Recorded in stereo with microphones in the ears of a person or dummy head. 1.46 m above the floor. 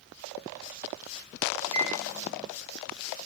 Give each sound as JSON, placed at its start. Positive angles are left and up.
{"t": 1.7, "sound": "a microwave", "side_deg": -25, "distance_m": 0.7}